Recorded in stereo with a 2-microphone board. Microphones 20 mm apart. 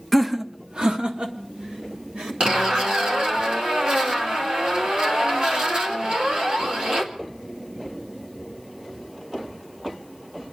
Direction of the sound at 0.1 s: 5° left (ahead or behind).